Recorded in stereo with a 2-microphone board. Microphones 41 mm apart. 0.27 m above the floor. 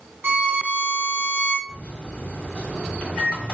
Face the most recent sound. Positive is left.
turn(degrees=25)  # may be behind; listen again after turning